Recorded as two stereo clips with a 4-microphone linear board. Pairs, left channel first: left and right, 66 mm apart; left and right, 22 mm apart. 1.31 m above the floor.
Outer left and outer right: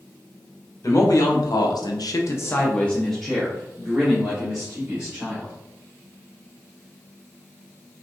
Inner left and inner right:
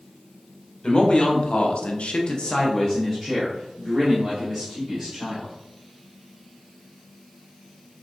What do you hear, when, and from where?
0.8 s a man speaking: 55° left (ahead or behind), 1.0 m; by 5.5 s 15° right (ahead or behind), 2.5 m